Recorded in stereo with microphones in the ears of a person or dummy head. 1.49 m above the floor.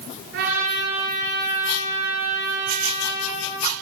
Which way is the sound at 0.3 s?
65° right (ahead or behind).